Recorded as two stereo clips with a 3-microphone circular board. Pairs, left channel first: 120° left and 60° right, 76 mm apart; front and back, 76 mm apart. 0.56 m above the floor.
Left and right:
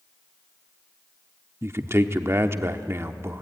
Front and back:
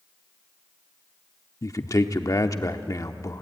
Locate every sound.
1.6 s a man speaking: 20° right, 0.9 m